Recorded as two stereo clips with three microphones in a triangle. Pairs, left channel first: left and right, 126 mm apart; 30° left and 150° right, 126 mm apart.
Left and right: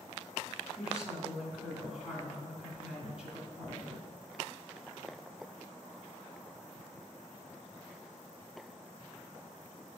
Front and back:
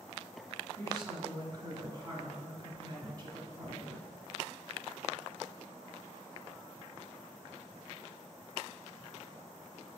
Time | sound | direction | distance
0.8 | a woman speaking | 160° right | 1.8 m